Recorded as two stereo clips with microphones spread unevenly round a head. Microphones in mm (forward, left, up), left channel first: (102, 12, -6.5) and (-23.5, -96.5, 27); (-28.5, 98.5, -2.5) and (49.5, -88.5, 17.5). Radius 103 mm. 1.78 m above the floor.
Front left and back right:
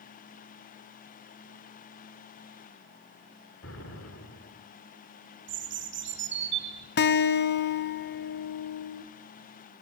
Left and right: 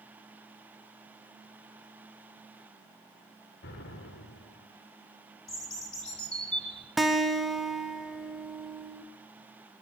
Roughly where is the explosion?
Left.